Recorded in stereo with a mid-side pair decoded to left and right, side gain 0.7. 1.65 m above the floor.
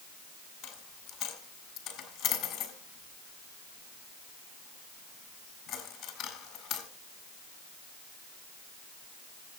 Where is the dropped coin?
60° left, 4.5 m.